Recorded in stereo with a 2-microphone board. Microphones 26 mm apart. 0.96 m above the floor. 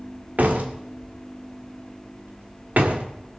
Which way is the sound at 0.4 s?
80° right.